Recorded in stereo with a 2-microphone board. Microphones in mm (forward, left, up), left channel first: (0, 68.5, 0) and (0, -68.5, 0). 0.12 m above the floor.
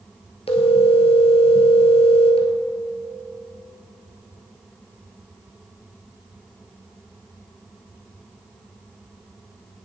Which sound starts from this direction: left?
A phone ringing, at 0.5 s.